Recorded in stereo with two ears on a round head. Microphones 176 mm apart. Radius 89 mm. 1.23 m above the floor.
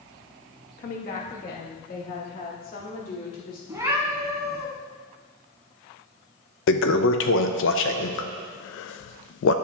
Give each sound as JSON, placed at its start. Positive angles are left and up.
{"t": 0.8, "sound": "a woman speaking", "side_deg": 45, "distance_m": 1.3}
{"t": 3.7, "sound": "a cat meowing", "side_deg": -15, "distance_m": 1.9}
{"t": 6.7, "sound": "a toilet flushing", "side_deg": 70, "distance_m": 0.6}